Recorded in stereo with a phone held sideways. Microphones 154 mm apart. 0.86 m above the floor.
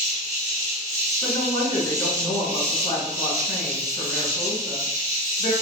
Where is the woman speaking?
65° left (ahead or behind), 1.3 m.